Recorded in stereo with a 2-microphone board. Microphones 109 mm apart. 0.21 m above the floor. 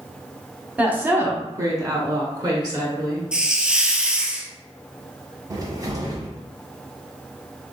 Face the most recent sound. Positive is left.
turn(degrees=-35)  # may be behind; listen again after turning